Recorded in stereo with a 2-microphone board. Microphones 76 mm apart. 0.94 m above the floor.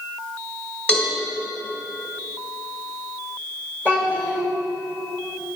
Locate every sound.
0.9 s a cowbell: 15° left (ahead or behind), 2.5 m
3.9 s a child speaking: 25° left (ahead or behind), 2 m